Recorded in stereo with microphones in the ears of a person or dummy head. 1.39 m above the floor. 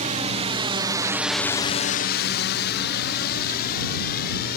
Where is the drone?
30° right (ahead or behind); by 4.6 s 50° left (ahead or behind).